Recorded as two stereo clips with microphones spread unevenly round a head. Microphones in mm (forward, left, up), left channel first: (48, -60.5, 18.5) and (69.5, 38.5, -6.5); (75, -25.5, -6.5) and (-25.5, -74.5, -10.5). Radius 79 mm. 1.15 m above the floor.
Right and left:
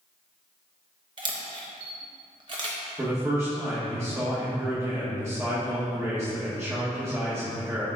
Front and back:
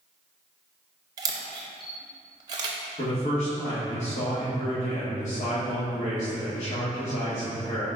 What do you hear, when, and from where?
1.2 s a camera shutter: 145° left, 0.6 m
3.0 s a man speaking: 15° left, 1.5 m